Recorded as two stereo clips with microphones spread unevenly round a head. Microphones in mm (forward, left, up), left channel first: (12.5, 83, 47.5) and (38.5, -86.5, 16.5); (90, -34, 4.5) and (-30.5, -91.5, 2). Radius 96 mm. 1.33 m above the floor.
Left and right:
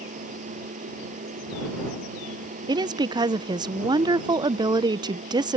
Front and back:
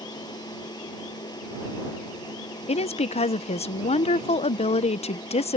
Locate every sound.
0.0 s a machine running: 35° right
2.7 s a woman speaking: 15° right